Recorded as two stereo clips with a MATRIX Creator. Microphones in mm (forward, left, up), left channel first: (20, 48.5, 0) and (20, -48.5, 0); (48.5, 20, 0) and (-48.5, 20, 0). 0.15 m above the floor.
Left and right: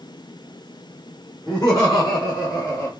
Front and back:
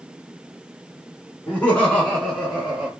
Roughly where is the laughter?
Ahead left.